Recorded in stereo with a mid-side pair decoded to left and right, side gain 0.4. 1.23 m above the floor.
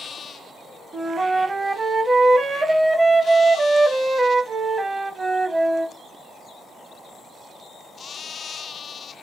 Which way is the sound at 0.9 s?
30° right.